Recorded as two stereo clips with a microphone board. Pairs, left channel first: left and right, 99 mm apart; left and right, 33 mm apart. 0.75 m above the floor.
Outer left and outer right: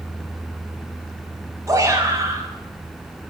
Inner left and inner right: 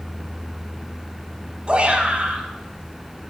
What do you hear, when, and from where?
1.7 s a shout: 30° right (ahead or behind), 5 m; by 3.3 s 25° right (ahead or behind), 6 m